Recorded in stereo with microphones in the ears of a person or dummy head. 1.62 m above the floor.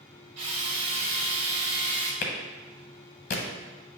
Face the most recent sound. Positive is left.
turn(degrees=45)  # may be behind; listen again after turning